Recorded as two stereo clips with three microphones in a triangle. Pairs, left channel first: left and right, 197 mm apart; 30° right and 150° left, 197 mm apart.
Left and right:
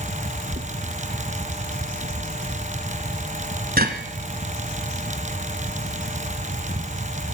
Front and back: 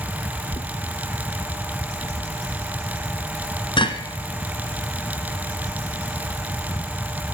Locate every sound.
0.5 s knocking: 85° right, 1.2 m